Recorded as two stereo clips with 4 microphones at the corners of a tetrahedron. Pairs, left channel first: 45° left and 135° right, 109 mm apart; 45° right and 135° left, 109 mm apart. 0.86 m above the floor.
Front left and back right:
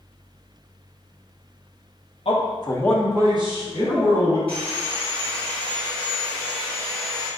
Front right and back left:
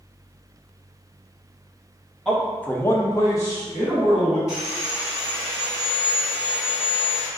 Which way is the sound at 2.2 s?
40° left.